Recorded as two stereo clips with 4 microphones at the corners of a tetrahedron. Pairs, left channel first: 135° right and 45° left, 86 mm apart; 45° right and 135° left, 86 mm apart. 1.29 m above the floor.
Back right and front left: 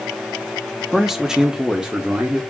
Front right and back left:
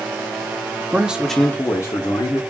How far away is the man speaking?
About 0.5 m.